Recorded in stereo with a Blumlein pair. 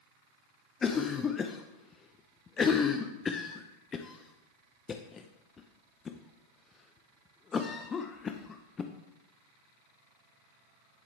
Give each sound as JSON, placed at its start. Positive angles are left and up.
{"t": 0.8, "sound": "a cough", "azimuth_deg": 20, "distance_m": 0.6}